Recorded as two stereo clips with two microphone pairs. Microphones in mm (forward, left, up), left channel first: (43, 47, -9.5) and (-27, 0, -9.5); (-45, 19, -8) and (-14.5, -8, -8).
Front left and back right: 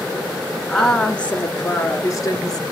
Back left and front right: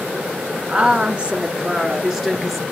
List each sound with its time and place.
0.7 s a woman speaking: 50° right, 1.3 m; by 2.6 s 30° left, 1.6 m